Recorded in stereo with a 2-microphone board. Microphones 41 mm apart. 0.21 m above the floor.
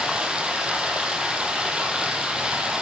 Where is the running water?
20° right (ahead or behind), 1.5 m.